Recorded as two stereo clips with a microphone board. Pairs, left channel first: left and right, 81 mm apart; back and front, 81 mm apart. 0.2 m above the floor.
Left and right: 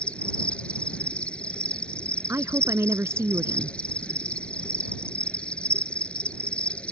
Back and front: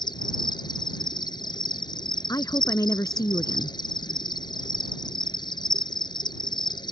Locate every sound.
0.0 s an insect: 165° left
2.3 s a woman speaking: 140° right